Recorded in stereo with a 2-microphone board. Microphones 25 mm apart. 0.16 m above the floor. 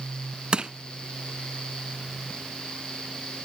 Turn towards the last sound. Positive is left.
turn(degrees=-40)  # may be behind; listen again after turning